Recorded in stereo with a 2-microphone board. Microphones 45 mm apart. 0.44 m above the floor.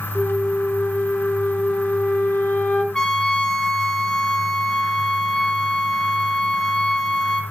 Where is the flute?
30° left (ahead or behind), 1.6 m.